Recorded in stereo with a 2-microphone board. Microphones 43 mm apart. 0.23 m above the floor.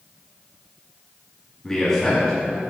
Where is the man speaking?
15° left (ahead or behind), 1.4 m.